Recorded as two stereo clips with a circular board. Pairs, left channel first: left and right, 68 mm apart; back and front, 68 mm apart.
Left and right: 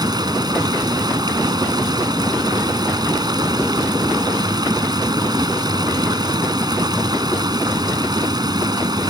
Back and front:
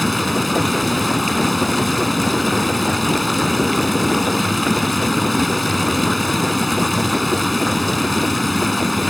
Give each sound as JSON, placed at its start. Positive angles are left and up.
{"t": 0.0, "sound": "running water", "azimuth_deg": -90}